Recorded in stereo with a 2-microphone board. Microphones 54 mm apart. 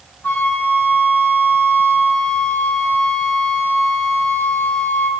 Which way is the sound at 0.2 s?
40° left (ahead or behind).